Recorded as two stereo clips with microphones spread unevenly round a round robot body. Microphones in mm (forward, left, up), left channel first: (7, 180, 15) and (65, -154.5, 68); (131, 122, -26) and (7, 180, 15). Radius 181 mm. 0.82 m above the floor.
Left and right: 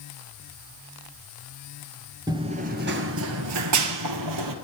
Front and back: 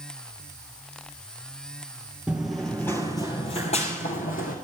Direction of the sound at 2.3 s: 145° right.